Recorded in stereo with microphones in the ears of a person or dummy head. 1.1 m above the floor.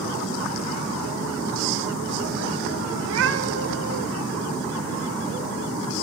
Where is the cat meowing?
65° right (ahead or behind), 1.8 m.